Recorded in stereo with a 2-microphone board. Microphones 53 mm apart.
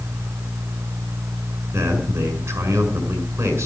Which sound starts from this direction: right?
A man speaking, at 1.7 s.